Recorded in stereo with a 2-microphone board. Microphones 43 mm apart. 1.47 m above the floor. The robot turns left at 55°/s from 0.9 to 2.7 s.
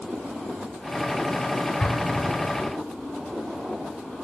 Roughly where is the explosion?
Centre.